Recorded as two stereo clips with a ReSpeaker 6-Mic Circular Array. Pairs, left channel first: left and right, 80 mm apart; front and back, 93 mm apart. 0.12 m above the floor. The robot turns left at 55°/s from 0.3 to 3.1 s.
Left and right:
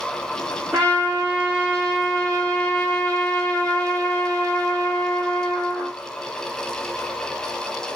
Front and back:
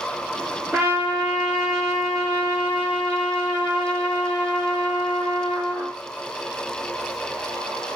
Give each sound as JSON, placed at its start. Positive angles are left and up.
{"t": 0.7, "sound": "a trumpet", "azimuth_deg": -110, "distance_m": 1.8}